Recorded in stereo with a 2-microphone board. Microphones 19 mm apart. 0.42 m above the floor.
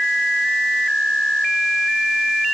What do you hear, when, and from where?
Only background noise.